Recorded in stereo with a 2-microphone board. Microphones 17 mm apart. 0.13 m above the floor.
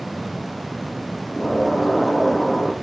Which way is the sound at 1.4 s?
20° left (ahead or behind).